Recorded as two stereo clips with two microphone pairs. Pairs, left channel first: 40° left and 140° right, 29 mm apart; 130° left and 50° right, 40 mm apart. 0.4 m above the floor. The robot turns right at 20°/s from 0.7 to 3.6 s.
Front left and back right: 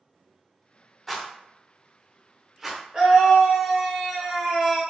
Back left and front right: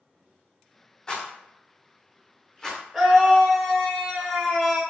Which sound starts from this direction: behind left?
A rattle, at 1.1 s.